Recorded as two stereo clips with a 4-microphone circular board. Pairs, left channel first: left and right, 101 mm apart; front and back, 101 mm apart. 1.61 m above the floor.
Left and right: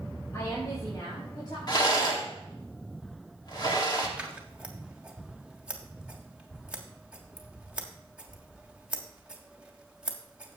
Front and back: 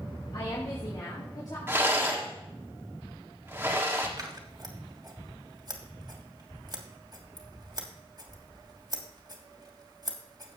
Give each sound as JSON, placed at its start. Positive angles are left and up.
{"t": 0.3, "sound": "a woman speaking", "azimuth_deg": 35, "distance_m": 2.0}
{"t": 1.7, "sound": "a rattle", "azimuth_deg": 120, "distance_m": 1.6}
{"t": 4.2, "sound": "scissors", "azimuth_deg": -165, "distance_m": 1.4}